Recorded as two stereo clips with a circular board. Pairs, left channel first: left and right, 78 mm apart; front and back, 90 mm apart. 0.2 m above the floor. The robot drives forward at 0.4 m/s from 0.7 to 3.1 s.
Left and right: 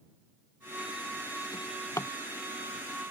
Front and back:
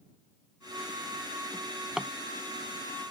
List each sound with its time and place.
1.5 s a drawer: 80° left; by 2.1 s 105° left